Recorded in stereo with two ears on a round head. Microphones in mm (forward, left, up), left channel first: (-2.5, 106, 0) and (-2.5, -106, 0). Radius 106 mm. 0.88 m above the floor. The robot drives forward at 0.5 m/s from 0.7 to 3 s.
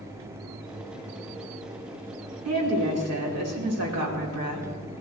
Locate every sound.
2.5 s a woman speaking: 75° right (ahead or behind), 3 m